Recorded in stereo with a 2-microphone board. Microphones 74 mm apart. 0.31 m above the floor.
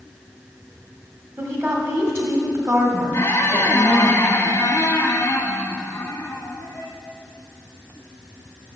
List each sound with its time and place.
1.4 s a woman speaking: 40° right (ahead or behind), 1.6 m
3.1 s a squeak: 35° left (ahead or behind), 1.1 m